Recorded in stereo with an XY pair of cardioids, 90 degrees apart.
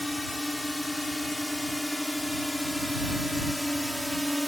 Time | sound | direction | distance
0.0 | a drone | 10° left | ?